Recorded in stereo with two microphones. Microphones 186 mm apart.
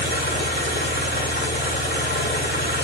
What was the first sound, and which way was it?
An engine running, 65° left (ahead or behind).